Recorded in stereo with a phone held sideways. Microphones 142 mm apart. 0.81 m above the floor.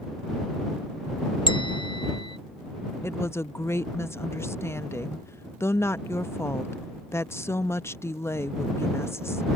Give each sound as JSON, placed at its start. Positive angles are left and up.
{"t": 1.5, "sound": "a bell", "side_deg": 35}
{"t": 3.0, "sound": "a woman speaking", "side_deg": 20}